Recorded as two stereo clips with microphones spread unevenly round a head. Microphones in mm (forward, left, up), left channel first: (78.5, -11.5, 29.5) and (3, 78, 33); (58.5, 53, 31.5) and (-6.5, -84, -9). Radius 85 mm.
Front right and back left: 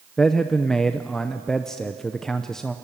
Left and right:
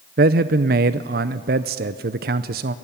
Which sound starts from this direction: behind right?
A man speaking, at 0.2 s.